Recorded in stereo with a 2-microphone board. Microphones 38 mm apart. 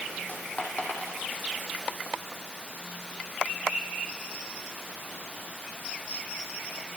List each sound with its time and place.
0.3 s a dropped coin: 40° left (ahead or behind), 6 m